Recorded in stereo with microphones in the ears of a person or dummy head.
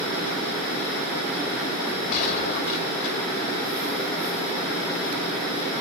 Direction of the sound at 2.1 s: 50° left (ahead or behind).